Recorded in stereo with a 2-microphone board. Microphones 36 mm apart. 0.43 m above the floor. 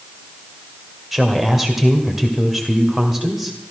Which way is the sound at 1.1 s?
10° right (ahead or behind).